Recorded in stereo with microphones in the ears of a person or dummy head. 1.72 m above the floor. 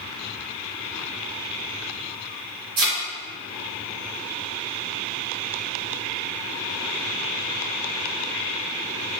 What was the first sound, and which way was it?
A thud, 45° right (ahead or behind).